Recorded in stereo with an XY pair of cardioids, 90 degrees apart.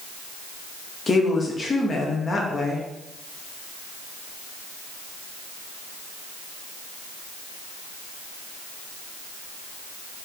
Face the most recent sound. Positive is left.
turn(degrees=35)